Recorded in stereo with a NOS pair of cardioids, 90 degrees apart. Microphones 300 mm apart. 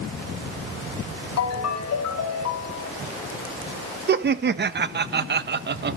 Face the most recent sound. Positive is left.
turn(degrees=-35)